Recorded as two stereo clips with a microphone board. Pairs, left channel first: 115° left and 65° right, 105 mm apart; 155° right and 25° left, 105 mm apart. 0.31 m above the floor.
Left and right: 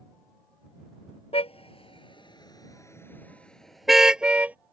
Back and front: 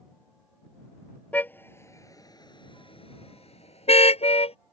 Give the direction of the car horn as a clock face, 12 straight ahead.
8 o'clock.